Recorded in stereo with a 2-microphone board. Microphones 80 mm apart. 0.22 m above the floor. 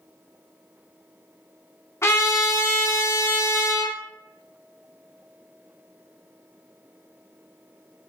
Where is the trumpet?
35° left (ahead or behind), 0.8 m.